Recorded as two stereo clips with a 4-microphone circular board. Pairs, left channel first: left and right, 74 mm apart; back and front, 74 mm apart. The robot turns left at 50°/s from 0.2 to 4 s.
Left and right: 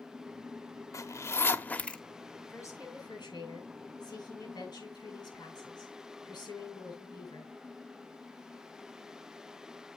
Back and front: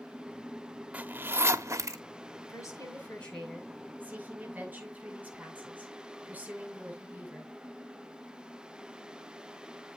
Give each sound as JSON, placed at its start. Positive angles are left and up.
{"t": 0.9, "sound": "a zipper", "azimuth_deg": 65, "distance_m": 0.9}
{"t": 2.5, "sound": "a woman speaking", "azimuth_deg": 140, "distance_m": 7.5}